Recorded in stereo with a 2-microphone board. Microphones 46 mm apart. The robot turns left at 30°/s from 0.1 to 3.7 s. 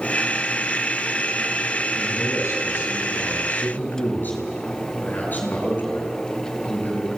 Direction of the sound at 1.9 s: 90° left.